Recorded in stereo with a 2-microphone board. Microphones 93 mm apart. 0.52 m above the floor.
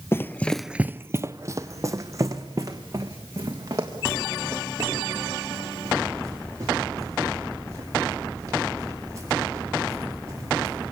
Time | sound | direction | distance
0.1 | running footsteps | 25° left (ahead or behind) | 0.7 m